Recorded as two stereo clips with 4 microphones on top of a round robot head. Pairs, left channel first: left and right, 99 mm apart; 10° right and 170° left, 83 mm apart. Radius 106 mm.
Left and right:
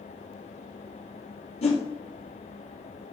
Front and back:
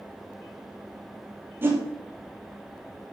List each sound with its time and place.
1.6 s a whoosh: 105° left, 2.5 m